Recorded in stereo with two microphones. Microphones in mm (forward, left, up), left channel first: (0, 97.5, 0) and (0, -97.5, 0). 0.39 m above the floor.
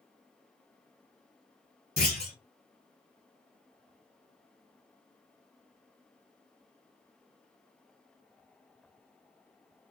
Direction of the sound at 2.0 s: 55° right (ahead or behind).